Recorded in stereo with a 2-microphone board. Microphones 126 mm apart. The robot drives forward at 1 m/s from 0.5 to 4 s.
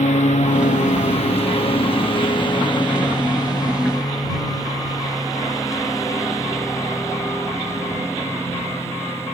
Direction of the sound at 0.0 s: 75° left (ahead or behind).